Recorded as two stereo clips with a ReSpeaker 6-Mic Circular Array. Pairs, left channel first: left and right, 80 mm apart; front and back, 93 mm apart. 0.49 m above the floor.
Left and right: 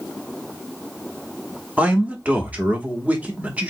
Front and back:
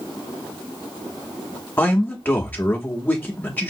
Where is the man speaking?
40° right, 0.8 m.